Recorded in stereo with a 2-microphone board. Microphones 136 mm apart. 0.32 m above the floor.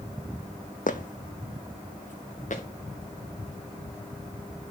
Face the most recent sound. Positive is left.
turn(degrees=65)  # may be behind; listen again after turning